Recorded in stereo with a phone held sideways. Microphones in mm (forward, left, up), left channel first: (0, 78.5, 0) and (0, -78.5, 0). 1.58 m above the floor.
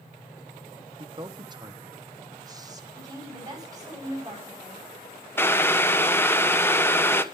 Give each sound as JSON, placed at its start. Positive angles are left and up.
{"t": 1.0, "sound": "a man speaking", "side_deg": -30, "distance_m": 1.0}
{"t": 3.0, "sound": "a woman speaking", "side_deg": -25, "distance_m": 9.5}
{"t": 5.4, "sound": "boiling", "side_deg": 15, "distance_m": 1.1}